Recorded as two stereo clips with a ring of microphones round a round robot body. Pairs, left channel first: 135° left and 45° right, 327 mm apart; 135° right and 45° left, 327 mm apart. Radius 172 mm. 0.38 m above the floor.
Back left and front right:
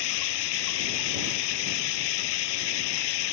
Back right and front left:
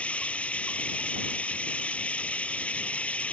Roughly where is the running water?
Behind left.